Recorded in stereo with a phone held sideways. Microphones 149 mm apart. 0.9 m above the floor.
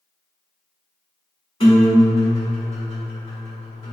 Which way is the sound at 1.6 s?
40° left (ahead or behind).